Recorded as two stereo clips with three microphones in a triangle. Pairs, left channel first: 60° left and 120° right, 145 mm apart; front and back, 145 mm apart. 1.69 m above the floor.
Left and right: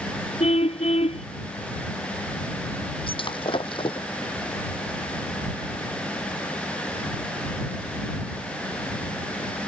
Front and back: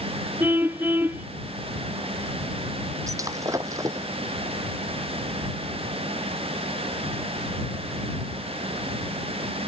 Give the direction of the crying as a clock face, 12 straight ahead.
No crying in this recording.